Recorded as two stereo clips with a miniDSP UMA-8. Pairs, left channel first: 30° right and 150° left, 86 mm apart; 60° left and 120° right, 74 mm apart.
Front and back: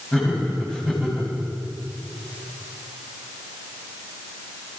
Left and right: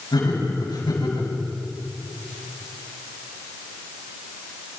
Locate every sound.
0.1 s laughter: 50° left, 8.5 m